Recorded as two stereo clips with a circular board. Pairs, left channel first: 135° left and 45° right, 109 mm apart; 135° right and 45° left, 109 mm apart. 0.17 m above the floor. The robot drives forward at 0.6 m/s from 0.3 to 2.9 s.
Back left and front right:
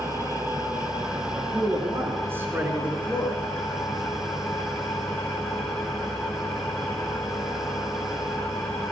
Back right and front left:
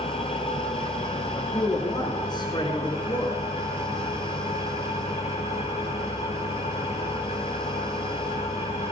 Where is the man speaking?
90° right, 2.5 m; by 3.4 s 120° right, 2.5 m.